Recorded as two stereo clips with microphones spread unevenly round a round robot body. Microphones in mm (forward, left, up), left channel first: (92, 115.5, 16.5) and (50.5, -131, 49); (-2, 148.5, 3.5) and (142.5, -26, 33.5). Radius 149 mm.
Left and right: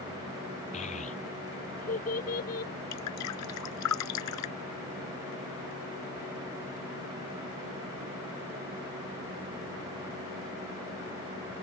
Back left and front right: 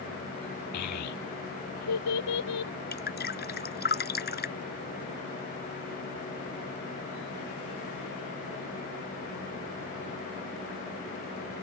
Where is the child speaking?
150° left; by 2.7 s 145° left.